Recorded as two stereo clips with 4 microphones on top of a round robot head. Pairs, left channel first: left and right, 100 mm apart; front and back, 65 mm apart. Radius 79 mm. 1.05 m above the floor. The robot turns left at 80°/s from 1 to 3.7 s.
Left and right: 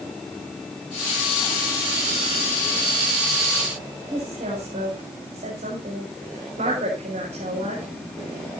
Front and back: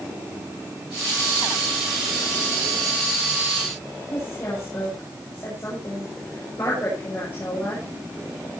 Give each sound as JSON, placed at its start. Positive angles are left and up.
{"t": 4.1, "sound": "a woman speaking", "azimuth_deg": -65, "distance_m": 7.0}